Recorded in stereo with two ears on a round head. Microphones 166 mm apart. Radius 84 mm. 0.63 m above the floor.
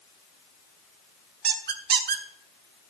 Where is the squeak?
55° right (ahead or behind), 1.2 m.